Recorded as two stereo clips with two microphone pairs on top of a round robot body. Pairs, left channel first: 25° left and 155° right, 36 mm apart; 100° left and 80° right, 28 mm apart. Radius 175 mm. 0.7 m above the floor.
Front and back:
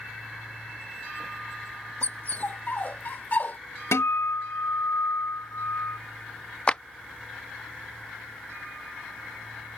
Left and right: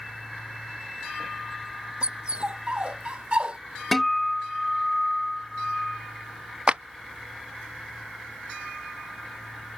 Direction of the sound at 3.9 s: 10° left.